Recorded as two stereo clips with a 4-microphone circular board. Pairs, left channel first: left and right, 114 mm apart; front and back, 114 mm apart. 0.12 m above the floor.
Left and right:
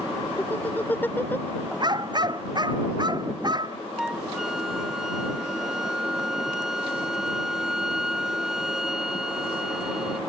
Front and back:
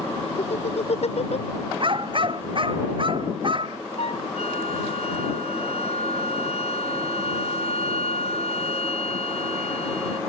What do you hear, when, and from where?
0.4 s laughter: 15° left
1.8 s a dog barking: 140° right
4.0 s a flute: 5° right